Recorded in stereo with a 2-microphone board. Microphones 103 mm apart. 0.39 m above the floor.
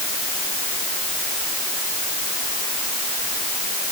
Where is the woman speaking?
No woman speaking in this recording.